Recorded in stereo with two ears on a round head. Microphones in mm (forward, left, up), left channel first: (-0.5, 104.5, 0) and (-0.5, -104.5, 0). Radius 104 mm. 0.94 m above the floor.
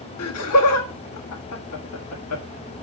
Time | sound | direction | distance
0.2 | laughter | 75° left (ahead or behind) | 1.6 m